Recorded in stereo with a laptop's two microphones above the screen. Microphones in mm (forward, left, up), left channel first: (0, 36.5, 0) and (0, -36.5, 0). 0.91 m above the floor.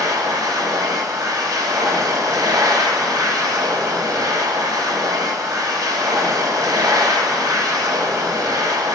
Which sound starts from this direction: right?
A machine running, at 0.0 s.